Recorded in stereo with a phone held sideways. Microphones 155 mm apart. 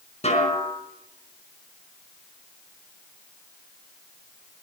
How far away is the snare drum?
About 5 m.